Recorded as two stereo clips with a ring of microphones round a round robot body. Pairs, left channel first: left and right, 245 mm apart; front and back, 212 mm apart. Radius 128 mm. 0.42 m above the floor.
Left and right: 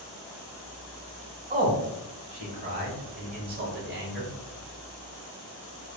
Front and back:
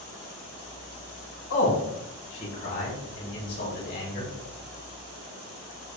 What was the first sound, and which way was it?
A man speaking, 25° right.